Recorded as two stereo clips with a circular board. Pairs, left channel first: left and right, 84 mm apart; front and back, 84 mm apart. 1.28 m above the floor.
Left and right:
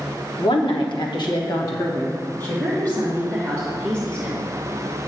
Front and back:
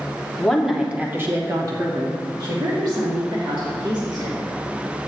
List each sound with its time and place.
0.4 s a woman speaking: 80° left, 1.4 m; by 4.4 s 170° left, 4 m